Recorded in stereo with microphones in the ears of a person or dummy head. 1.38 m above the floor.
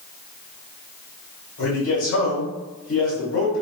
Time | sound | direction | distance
1.6 | a man speaking | 85° left | 1.8 m